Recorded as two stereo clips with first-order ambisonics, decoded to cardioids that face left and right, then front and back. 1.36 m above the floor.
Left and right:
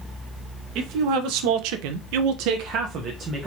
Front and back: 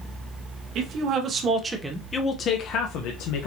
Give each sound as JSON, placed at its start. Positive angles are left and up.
{"t": 0.8, "sound": "a man speaking", "azimuth_deg": -130, "distance_m": 0.9}